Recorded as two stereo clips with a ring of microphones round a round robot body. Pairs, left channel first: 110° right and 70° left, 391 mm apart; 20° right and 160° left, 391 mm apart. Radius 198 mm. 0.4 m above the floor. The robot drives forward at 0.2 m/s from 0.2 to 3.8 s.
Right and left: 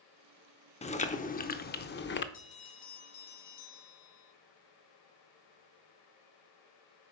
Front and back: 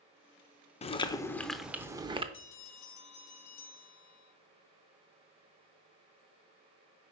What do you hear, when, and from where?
0.8 s chewing: 70° right, 0.5 m; by 2.2 s 140° right, 0.6 m
2.3 s a bell: 85° right, 2 m; by 4.3 s 90° right, 2 m